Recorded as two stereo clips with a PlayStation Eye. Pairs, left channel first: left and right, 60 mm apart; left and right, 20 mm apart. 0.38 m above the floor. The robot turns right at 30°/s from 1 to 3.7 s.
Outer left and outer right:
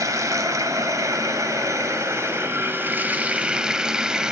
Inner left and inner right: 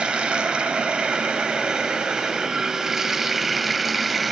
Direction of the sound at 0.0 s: 95° right.